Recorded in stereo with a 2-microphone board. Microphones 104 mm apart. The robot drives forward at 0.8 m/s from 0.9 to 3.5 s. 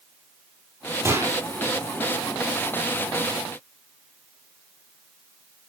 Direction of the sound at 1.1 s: 30° right (ahead or behind).